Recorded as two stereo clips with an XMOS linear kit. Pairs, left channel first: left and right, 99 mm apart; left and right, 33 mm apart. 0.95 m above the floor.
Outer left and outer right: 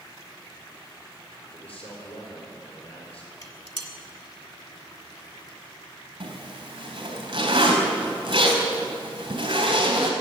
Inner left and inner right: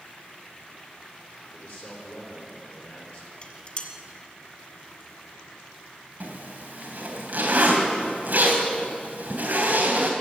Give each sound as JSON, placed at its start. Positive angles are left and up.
{"t": 1.5, "sound": "a man speaking", "side_deg": 75, "distance_m": 4.5}
{"t": 3.4, "sound": "dishes clattering", "side_deg": 40, "distance_m": 1.6}
{"t": 6.2, "sound": "a zipper", "side_deg": -50, "distance_m": 3.0}